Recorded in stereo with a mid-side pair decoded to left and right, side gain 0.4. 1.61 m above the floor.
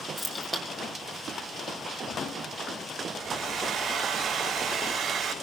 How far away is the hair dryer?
About 6 m.